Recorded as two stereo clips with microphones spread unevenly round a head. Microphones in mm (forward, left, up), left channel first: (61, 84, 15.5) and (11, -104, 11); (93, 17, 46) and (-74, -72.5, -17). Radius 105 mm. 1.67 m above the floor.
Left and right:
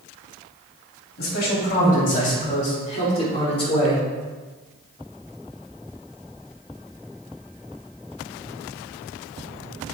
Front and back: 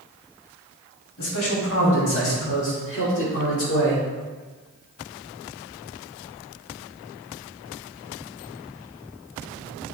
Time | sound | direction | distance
1.2 | a man speaking | 35° left | 3 m